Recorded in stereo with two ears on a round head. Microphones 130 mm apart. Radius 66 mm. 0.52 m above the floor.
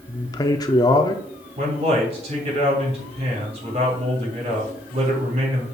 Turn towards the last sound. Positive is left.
turn(degrees=-45)  # may be behind; listen again after turning